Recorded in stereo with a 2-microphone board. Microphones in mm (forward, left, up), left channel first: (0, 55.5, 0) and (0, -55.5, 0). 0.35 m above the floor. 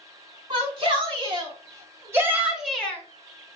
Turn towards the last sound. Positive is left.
turn(degrees=20)  # may be behind; listen again after turning